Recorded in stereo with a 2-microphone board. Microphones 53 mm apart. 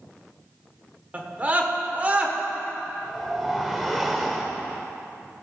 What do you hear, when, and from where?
1.1 s a scream: 30° right (ahead or behind), 1.2 m
3.0 s a whoosh: centre (ahead or behind), 1.1 m